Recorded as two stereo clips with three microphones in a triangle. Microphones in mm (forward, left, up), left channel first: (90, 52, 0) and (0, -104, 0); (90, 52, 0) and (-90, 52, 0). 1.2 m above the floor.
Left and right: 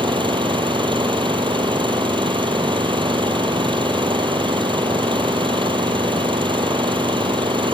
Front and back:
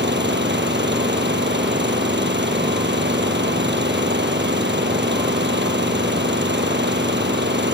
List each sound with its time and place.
0.0 s an engine running: straight behind